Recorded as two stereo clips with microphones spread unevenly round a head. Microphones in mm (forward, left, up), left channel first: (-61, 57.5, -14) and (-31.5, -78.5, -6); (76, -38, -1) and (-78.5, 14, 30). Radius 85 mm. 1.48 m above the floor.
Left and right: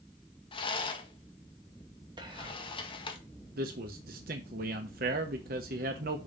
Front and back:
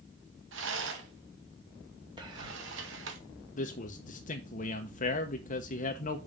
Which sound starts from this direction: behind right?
Whispering, at 2.2 s.